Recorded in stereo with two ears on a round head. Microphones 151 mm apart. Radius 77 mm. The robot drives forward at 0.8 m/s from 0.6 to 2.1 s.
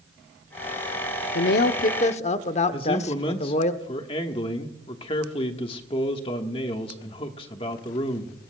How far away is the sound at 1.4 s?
About 0.6 m.